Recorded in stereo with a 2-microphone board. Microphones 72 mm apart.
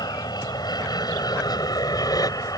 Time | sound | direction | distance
0.0 | an aircraft | 70° left (ahead or behind) | ?